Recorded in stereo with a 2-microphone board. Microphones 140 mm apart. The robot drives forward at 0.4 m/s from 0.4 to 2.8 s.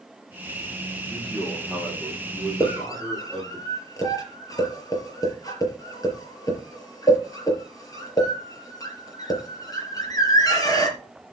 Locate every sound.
1.1 s a man speaking: 5° left (ahead or behind), 6.5 m
2.6 s a scream: 25° left (ahead or behind), 5.5 m